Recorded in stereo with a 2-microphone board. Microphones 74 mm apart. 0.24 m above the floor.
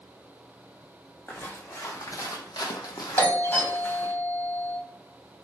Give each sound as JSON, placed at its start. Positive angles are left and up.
{"t": 1.3, "sound": "footsteps", "side_deg": 25, "distance_m": 0.9}
{"t": 3.2, "sound": "a doorbell", "side_deg": 25, "distance_m": 1.6}